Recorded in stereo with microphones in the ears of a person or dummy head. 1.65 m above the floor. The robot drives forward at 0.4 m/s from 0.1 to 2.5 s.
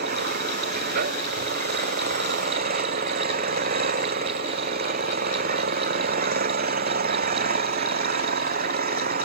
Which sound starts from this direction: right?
An engine running, at 0.0 s.